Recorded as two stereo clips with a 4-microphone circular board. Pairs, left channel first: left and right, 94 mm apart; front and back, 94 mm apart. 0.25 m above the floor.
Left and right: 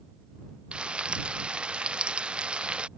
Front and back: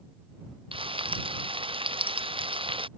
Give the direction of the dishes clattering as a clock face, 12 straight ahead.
No dishes clattering in this recording.